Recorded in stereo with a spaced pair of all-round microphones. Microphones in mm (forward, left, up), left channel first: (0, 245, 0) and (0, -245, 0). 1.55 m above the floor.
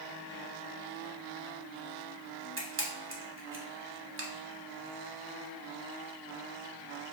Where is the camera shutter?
25° right (ahead or behind), 0.9 m.